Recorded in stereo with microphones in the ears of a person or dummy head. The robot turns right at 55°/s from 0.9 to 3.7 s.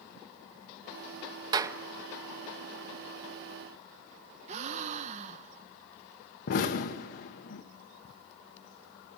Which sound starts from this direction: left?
An explosion, at 6.5 s.